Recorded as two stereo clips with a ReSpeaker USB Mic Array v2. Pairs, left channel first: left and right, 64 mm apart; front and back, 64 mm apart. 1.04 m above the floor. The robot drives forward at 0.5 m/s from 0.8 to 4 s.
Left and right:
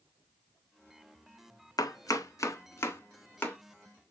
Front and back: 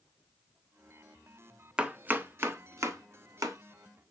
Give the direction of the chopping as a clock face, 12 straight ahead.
9 o'clock.